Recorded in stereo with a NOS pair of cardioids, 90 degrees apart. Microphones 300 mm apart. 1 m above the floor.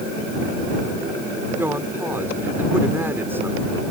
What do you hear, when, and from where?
1.6 s a woman speaking: 10° right